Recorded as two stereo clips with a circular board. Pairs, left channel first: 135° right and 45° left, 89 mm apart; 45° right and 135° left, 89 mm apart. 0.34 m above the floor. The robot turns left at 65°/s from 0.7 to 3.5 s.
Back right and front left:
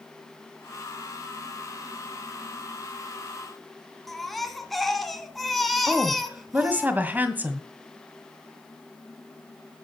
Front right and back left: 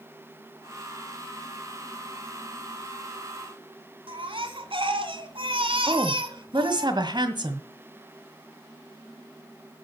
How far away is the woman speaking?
About 1.8 m.